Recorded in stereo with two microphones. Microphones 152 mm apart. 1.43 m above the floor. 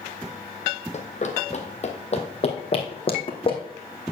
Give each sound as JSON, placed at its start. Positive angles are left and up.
{"t": 0.9, "sound": "running footsteps", "side_deg": 45, "distance_m": 2.0}